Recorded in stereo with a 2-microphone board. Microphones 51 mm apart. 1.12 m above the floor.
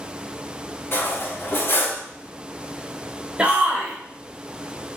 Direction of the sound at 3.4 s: 25° right (ahead or behind).